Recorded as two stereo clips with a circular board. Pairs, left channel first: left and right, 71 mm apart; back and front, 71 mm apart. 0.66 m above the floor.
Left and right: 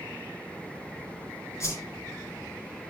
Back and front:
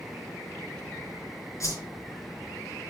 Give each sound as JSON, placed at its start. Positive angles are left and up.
{"t": 1.6, "sound": "a whoosh", "azimuth_deg": 140, "distance_m": 5.0}